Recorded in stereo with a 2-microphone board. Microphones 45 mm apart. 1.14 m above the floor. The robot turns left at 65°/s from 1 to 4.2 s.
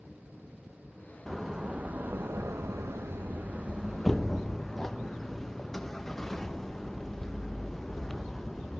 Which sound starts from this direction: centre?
A door slam, at 1.3 s.